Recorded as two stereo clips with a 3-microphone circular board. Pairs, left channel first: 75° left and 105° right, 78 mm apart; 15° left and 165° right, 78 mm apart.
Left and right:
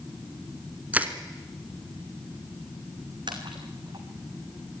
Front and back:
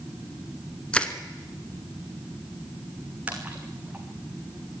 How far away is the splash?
About 3 m.